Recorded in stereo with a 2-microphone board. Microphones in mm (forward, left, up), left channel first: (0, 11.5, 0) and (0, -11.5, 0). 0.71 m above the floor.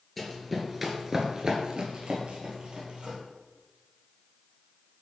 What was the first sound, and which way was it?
Running footsteps, 10° left (ahead or behind).